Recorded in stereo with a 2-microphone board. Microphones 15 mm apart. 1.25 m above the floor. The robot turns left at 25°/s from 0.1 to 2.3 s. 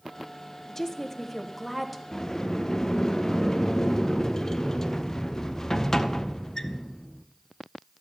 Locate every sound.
0.7 s a woman speaking: 25° left, 1.0 m; by 2.0 s 10° right, 1.0 m
2.1 s a sliding door: 35° left (ahead or behind), 0.5 m; by 7.2 s 30° left (ahead or behind), 0.5 m